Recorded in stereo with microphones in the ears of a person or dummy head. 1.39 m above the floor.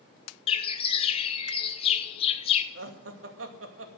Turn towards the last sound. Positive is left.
turn(degrees=-85)